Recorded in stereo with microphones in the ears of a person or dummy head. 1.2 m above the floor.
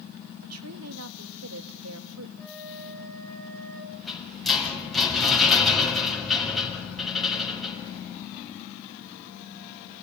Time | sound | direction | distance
0.4 | a woman speaking | 75° right (ahead or behind) | 1.9 m
2.4 | a flute | 5° left (ahead or behind) | 4.5 m
3.9 | a rattle | 5° left (ahead or behind) | 7.5 m